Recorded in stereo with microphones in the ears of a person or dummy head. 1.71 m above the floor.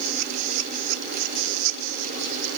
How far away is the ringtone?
I don't hear a ringtone.